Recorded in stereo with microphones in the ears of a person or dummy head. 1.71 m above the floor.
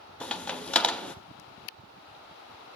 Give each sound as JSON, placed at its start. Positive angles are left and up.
{"t": 0.2, "sound": "a crack", "side_deg": 0, "distance_m": 0.6}